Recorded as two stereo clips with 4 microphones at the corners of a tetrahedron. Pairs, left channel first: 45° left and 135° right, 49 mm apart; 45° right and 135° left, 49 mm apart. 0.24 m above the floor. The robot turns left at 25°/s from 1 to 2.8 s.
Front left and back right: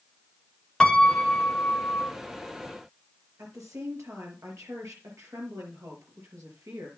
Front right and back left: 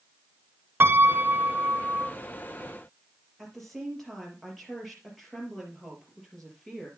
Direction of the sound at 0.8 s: 110° left.